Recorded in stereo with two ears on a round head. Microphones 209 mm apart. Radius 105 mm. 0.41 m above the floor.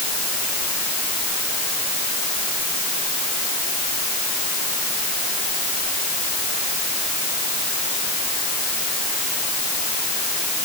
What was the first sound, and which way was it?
Only background noise.